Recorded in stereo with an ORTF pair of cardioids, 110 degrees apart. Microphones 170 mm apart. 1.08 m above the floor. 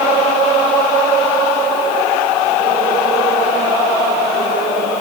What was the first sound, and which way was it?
Only background noise.